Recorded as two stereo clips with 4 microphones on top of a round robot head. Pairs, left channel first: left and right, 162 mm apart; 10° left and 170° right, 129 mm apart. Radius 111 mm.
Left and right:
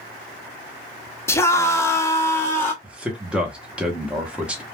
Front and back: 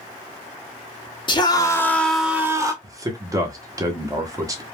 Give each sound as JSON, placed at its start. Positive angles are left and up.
{"t": 1.3, "sound": "a scream", "azimuth_deg": 25, "distance_m": 0.9}
{"t": 2.8, "sound": "a man speaking", "azimuth_deg": -165, "distance_m": 0.8}